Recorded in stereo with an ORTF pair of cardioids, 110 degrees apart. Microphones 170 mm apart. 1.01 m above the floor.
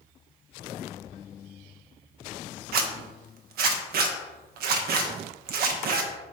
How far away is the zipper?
About 0.8 m.